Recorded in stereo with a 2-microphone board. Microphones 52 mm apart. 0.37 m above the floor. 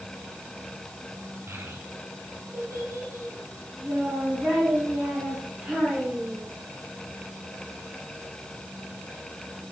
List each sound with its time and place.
1.5 s a child speaking: 65° right (ahead or behind), 1.6 m; by 6.4 s 15° right (ahead or behind), 4 m